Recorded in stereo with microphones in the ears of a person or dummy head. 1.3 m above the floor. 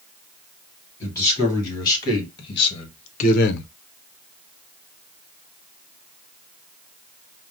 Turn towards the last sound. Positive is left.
turn(degrees=80)